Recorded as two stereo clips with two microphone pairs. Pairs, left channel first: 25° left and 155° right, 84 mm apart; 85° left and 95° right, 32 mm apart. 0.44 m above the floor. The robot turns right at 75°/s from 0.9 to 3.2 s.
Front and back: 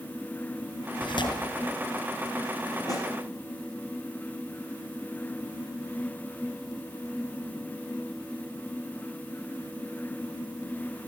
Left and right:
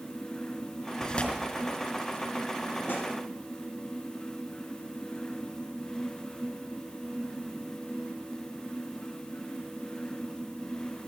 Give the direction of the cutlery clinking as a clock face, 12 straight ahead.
I don't hear cutlery clinking.